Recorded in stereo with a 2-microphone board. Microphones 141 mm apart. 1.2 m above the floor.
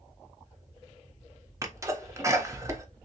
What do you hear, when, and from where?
1.6 s a sneeze: 20° right (ahead or behind), 0.8 m